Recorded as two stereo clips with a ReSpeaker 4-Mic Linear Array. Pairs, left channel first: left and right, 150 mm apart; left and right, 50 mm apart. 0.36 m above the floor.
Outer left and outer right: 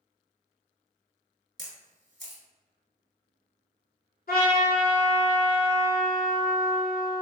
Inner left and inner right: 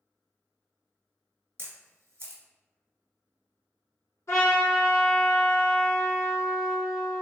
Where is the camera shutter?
60° right (ahead or behind), 1.0 m.